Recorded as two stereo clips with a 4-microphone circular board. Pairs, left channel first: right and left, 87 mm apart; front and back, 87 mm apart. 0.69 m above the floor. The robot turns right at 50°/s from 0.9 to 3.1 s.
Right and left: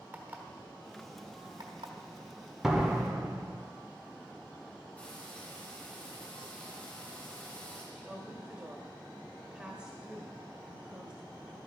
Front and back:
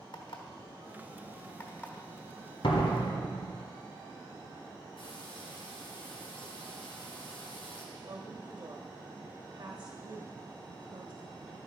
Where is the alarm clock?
20° left, 1.3 m; by 1.9 s 70° left, 1.3 m.